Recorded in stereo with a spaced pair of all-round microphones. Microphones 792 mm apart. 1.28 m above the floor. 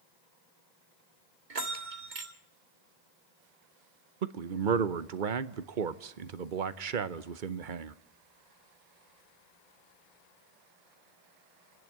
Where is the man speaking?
80° right, 1.0 m.